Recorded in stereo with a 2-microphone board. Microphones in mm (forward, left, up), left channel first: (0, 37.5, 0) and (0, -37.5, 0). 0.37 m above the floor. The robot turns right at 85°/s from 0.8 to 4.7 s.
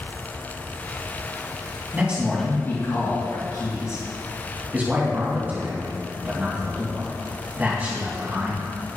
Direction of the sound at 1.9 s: 25° right (ahead or behind).